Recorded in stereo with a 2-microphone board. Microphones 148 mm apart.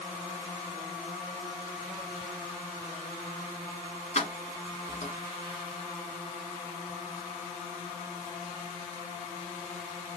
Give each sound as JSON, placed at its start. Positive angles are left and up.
{"t": 4.2, "sound": "keys jangling", "side_deg": 50, "distance_m": 1.6}